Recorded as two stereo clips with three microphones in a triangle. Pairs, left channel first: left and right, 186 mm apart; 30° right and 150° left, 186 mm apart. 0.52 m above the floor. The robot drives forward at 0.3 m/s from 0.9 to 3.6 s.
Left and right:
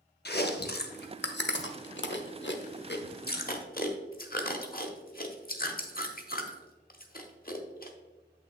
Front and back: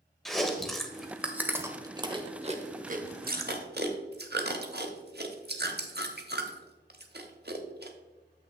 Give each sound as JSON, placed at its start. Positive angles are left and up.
{"t": 0.2, "sound": "chewing", "azimuth_deg": 60, "distance_m": 0.7}